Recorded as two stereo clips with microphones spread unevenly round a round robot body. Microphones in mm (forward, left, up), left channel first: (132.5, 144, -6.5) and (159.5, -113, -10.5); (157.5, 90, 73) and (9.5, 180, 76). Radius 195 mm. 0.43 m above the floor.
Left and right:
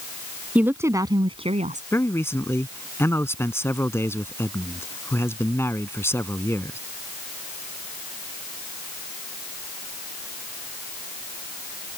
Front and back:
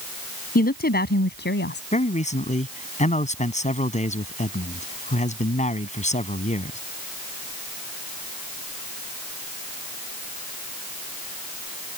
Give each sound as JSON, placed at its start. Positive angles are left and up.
{"t": 0.6, "sound": "a woman speaking", "azimuth_deg": 0}
{"t": 1.9, "sound": "a man speaking", "azimuth_deg": 15}